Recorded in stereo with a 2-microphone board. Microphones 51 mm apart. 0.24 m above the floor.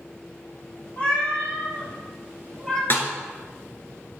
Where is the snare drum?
45° left (ahead or behind), 1.3 m.